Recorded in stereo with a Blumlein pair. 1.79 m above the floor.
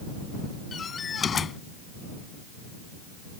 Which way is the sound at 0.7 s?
20° left.